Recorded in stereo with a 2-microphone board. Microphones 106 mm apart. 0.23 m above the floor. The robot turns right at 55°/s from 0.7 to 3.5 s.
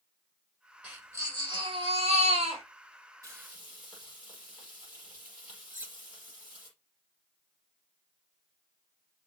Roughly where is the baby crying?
Behind.